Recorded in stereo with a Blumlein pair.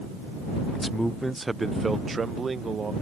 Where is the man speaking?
5° left; by 2.9 s 15° right.